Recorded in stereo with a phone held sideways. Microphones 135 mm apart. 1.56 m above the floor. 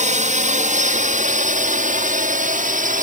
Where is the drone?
60° right (ahead or behind); by 3.0 s 70° right (ahead or behind).